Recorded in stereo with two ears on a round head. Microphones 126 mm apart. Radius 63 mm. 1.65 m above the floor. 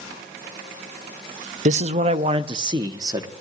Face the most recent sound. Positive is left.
turn(degrees=-25)  # may be behind; listen again after turning